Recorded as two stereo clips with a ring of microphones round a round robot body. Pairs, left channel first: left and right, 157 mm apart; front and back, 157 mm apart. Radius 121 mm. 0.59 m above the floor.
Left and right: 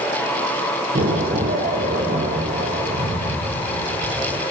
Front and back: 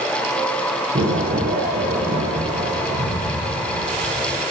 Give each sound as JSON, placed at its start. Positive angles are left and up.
{"t": 0.9, "sound": "an explosion", "azimuth_deg": -140, "distance_m": 6.0}